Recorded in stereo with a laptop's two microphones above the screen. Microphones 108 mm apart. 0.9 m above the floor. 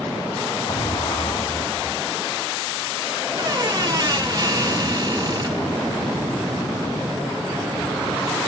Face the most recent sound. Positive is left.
turn(degrees=-40)  # may be behind; listen again after turning